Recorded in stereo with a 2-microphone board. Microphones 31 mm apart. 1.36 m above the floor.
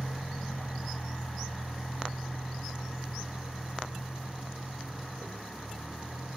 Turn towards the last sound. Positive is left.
turn(degrees=65)  # may be behind; listen again after turning